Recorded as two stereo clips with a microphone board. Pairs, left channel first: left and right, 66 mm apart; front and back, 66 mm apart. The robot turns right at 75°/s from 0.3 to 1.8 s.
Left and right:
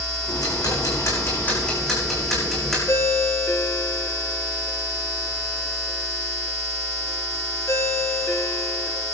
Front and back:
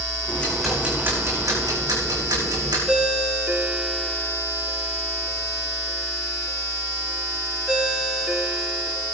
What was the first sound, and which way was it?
Ticking, 65° left.